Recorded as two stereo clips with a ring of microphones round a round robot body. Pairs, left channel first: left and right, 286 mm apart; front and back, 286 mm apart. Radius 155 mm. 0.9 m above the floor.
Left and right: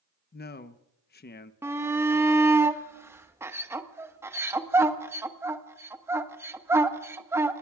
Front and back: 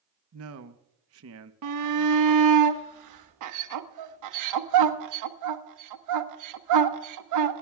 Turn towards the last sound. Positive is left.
turn(degrees=-170)